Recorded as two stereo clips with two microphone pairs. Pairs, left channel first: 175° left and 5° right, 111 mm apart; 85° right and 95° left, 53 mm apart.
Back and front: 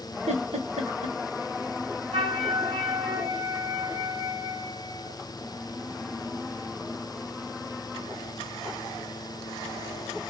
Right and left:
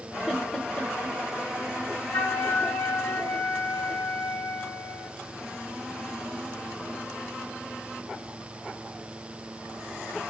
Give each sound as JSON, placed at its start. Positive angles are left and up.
{"t": 0.3, "sound": "a giggle", "azimuth_deg": -10, "distance_m": 0.9}
{"t": 2.1, "sound": "a flute", "azimuth_deg": -40, "distance_m": 1.6}